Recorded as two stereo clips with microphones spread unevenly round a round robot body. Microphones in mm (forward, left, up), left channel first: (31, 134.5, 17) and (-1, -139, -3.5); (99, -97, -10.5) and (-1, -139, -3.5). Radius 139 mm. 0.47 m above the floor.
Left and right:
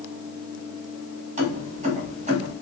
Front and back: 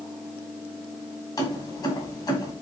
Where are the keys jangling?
35° right, 2 m.